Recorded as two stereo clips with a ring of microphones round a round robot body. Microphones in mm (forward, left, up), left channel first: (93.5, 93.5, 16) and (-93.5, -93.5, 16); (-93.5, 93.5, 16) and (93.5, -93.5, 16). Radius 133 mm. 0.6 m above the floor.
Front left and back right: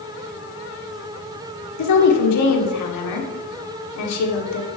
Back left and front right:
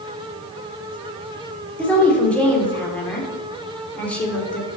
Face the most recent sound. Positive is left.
turn(degrees=50)